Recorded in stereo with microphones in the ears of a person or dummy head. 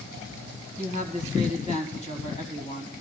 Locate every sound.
0.8 s a woman speaking: 35° left (ahead or behind), 2 m